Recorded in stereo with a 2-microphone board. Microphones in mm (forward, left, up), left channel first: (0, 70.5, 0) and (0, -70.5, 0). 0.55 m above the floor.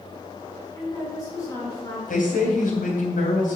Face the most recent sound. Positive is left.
turn(degrees=75)  # may be behind; listen again after turning